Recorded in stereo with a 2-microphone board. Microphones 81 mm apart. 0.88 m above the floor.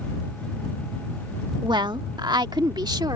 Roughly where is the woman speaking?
Right.